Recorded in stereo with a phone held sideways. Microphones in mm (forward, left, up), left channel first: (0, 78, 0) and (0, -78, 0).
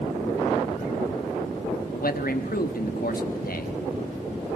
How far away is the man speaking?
About 1.2 m.